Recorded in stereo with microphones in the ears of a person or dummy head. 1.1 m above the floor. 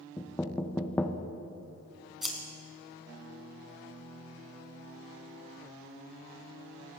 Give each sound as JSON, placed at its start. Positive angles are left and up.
{"t": 0.2, "sound": "knocking", "side_deg": 5, "distance_m": 0.5}
{"t": 2.2, "sound": "scissors", "side_deg": 0, "distance_m": 1.9}